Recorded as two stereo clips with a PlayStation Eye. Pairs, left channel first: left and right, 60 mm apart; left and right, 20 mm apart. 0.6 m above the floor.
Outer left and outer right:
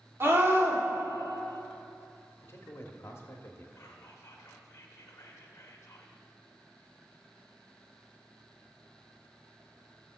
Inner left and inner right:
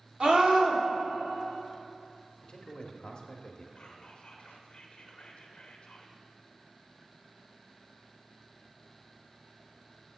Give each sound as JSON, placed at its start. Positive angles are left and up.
{"t": 0.2, "sound": "a scream", "side_deg": -40, "distance_m": 1.8}
{"t": 2.4, "sound": "a man speaking", "side_deg": 45, "distance_m": 0.9}
{"t": 3.8, "sound": "whispering", "side_deg": 45, "distance_m": 1.0}